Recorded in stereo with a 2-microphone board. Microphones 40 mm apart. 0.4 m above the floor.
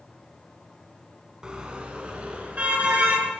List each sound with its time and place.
1.4 s a car horn: 25° right (ahead or behind), 2.5 m; by 3.3 s 40° right (ahead or behind), 3.5 m